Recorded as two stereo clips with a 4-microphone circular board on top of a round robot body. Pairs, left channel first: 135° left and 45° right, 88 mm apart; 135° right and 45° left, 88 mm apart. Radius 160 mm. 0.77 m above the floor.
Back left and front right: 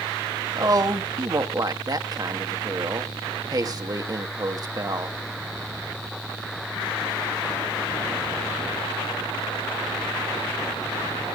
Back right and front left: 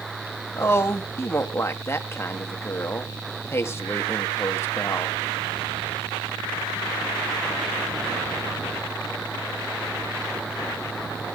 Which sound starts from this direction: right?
A woman speaking, at 0.6 s.